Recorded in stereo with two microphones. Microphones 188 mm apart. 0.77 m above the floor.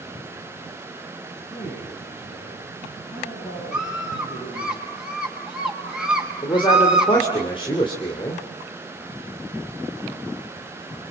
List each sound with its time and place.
1.5 s a man speaking: 15° left (ahead or behind), 6.5 m; by 4.7 s 25° left (ahead or behind), 9.5 m
3.7 s a scream: 5° right (ahead or behind), 5.5 m
6.4 s a man speaking: 25° left (ahead or behind), 2.5 m